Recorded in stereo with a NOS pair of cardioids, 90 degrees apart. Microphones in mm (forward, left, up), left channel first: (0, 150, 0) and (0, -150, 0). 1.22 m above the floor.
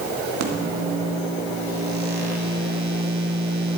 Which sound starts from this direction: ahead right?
A microwave, at 0.4 s.